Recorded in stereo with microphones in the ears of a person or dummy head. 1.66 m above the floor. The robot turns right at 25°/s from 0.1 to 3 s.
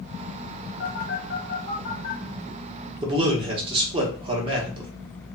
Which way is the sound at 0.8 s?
45° left (ahead or behind).